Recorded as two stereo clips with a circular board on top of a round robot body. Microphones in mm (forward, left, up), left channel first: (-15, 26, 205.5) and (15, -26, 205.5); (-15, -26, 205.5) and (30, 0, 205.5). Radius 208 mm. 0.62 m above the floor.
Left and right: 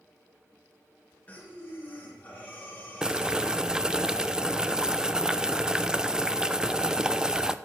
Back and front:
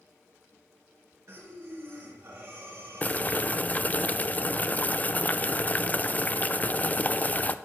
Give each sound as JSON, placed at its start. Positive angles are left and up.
{"t": 1.3, "sound": "breathing", "azimuth_deg": 60, "distance_m": 3.5}
{"t": 3.0, "sound": "boiling", "azimuth_deg": -125, "distance_m": 0.7}